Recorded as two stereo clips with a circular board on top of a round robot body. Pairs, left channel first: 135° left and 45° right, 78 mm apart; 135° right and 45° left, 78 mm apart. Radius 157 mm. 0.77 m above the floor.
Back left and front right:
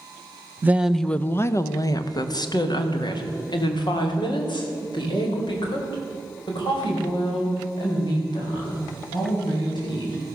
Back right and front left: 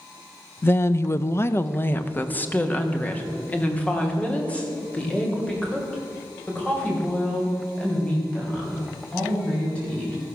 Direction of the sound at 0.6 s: 90° right.